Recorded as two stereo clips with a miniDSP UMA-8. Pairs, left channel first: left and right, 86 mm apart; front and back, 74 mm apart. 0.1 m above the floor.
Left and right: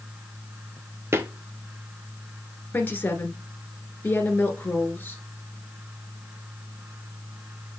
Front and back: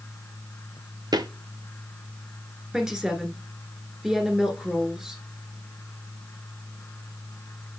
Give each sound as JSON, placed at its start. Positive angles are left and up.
{"t": 1.1, "sound": "footsteps", "azimuth_deg": -150, "distance_m": 1.1}
{"t": 2.7, "sound": "a woman speaking", "azimuth_deg": 110, "distance_m": 1.5}